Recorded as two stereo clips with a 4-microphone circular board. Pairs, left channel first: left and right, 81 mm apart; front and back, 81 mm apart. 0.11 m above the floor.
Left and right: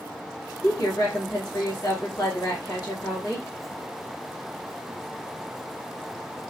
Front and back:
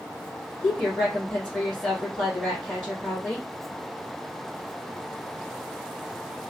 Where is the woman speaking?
70° left, 2.5 m.